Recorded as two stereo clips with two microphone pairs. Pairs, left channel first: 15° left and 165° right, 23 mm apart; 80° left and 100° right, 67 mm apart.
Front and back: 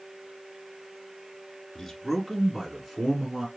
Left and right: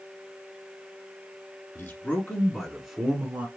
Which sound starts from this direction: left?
A man speaking, at 1.8 s.